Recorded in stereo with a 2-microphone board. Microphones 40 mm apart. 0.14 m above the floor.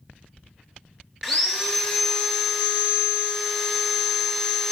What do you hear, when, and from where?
1.2 s sawing: centre (ahead or behind), 0.8 m